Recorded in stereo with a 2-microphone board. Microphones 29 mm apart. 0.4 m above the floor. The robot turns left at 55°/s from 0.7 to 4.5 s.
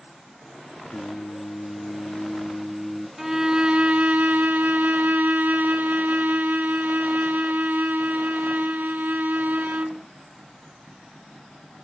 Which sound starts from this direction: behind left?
Singing, at 0.9 s.